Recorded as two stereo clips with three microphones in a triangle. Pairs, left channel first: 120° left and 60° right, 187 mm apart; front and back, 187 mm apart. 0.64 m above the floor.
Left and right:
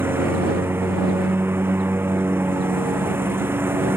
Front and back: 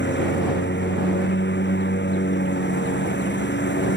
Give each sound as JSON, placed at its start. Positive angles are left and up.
{"t": 0.0, "sound": "a lawn mower", "azimuth_deg": 20}